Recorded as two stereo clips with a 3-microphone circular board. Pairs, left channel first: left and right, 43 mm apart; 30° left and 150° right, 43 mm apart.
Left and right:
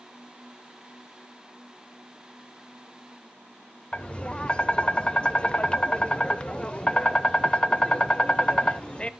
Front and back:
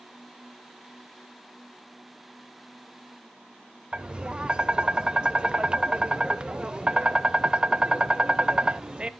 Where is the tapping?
150° left, 0.6 m.